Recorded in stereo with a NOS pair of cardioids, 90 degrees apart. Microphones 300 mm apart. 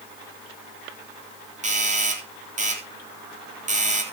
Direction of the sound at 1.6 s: 25° right.